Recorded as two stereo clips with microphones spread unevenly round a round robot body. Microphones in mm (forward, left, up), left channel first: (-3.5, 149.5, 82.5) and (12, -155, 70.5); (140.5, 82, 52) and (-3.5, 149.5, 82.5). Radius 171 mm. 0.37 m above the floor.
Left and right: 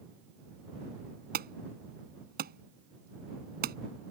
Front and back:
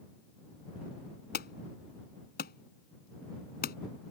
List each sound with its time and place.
1.3 s an alarm: 30° right